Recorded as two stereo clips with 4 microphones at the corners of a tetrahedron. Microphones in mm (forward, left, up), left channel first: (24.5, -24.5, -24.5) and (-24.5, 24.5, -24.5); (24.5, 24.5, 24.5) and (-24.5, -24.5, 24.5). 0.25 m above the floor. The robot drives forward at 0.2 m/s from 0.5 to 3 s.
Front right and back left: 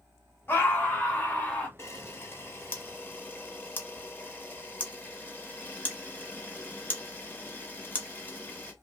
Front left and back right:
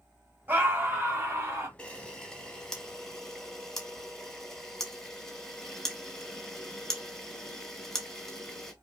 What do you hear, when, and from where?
0.5 s a scream: 85° right, 1.3 m; by 1.7 s 105° right, 1.3 m
1.8 s a camera shutter: 25° right, 1.0 m; by 8.7 s 35° right, 0.9 m